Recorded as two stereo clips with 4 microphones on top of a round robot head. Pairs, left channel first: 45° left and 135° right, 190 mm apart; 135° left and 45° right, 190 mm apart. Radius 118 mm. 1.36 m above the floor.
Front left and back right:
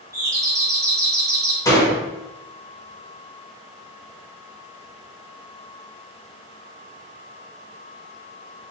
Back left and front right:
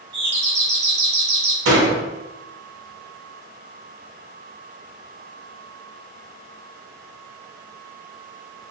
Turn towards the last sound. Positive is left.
turn(degrees=-25)